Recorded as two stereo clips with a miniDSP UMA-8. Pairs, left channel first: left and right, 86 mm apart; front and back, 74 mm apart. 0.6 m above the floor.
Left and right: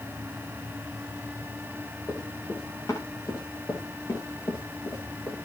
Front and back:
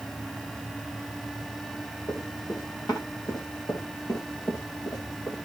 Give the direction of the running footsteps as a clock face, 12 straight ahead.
11 o'clock.